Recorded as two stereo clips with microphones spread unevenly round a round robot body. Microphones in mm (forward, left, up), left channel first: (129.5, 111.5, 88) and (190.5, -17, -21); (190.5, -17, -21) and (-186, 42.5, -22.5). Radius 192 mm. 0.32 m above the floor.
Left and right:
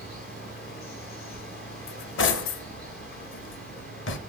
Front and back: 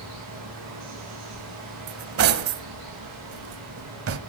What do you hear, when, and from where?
0.0 s running water: 120° left, 9 m
1.9 s cutlery clinking: 125° left, 1.1 m